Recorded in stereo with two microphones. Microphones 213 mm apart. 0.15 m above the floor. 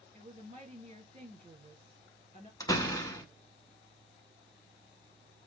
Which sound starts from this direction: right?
A woman speaking, at 0.1 s.